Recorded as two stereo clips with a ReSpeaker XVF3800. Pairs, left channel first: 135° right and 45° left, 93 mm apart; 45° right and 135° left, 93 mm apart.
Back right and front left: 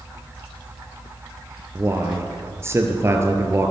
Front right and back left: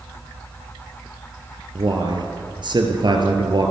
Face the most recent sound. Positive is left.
turn(degrees=105)